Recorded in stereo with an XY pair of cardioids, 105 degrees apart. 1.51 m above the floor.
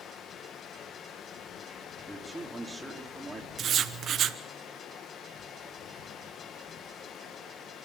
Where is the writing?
55° right, 1.0 m.